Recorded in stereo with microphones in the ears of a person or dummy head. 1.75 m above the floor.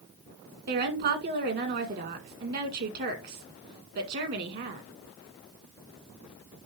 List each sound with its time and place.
0.7 s a woman speaking: 55° right (ahead or behind), 1.9 m